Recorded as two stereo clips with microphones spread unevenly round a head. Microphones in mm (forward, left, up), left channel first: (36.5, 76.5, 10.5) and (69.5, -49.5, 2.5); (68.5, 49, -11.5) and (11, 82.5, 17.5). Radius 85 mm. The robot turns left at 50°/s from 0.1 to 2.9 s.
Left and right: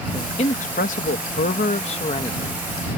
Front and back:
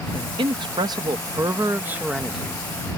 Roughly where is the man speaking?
Behind.